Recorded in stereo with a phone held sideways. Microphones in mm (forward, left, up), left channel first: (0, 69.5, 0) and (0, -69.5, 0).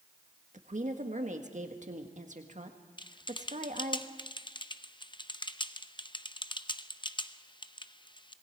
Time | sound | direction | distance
0.5 | a woman speaking | 60° right (ahead or behind) | 1.6 m
3.0 | typing on a keyboard | 35° left (ahead or behind) | 0.6 m